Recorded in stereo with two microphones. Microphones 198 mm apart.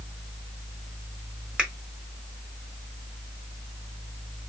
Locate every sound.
1.6 s a finger snap: 5° right (ahead or behind), 1.3 m